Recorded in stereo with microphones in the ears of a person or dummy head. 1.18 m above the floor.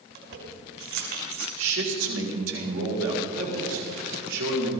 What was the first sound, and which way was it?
Keys jangling, 55° right (ahead or behind).